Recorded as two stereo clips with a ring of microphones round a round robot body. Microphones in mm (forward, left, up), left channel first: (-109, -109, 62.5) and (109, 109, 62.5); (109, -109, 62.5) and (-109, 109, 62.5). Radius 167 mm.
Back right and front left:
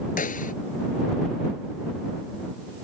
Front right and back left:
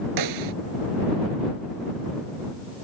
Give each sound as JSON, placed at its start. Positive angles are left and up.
{"t": 0.2, "sound": "a snare drum", "azimuth_deg": 160}